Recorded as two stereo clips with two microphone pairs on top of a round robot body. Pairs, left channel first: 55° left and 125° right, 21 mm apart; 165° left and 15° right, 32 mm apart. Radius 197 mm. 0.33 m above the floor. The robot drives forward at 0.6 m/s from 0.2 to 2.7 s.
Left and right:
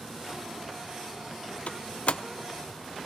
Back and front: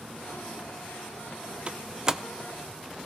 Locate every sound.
1.7 s a door slam: 35° left, 0.9 m; by 2.2 s 55° left, 0.8 m